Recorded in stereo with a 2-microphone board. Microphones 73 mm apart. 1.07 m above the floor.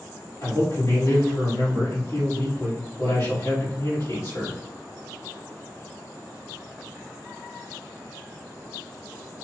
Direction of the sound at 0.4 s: 55° left (ahead or behind).